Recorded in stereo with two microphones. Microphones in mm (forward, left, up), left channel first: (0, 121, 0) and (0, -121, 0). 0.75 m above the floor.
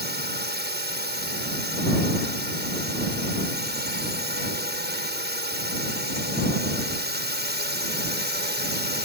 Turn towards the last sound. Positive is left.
turn(degrees=-45)  # may be behind; listen again after turning